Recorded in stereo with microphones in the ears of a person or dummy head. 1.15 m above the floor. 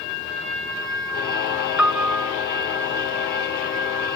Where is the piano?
5° left (ahead or behind), 0.6 m.